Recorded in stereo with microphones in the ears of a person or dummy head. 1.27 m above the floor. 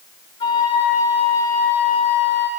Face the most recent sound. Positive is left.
turn(degrees=25)  # may be behind; listen again after turning